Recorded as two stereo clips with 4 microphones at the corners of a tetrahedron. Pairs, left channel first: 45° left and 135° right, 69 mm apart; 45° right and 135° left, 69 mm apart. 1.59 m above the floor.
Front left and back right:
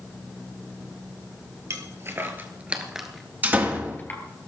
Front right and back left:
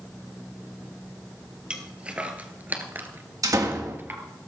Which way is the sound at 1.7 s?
155° right.